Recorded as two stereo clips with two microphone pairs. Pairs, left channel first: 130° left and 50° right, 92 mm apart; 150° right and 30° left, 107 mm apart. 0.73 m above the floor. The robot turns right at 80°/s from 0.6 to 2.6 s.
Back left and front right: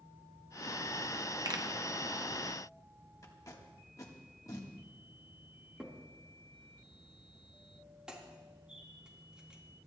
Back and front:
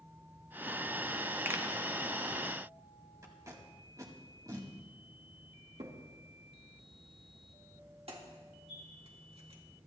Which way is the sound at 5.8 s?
30° left.